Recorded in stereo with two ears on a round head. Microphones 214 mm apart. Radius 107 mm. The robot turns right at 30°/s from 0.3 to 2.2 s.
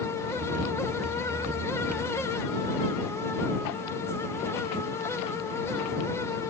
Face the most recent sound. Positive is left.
No sound to turn to.